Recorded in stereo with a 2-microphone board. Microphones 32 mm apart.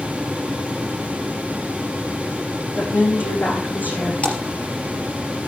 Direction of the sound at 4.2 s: 35° left (ahead or behind).